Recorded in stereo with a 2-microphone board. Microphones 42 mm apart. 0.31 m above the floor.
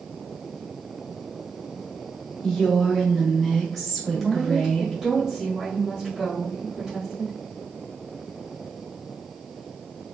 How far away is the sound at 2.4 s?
About 1.1 m.